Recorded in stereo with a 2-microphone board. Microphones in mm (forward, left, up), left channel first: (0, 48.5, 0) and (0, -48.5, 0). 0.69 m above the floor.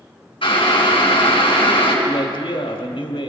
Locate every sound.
0.4 s boiling: 60° left (ahead or behind), 4 m
2.0 s a man speaking: 65° left (ahead or behind), 2.0 m